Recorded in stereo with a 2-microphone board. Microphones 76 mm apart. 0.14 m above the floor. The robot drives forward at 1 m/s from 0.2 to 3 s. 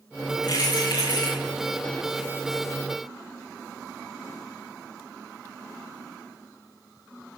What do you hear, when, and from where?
0.4 s keys jangling: 75° left (ahead or behind), 7 m; by 1.4 s 70° left (ahead or behind), 7.5 m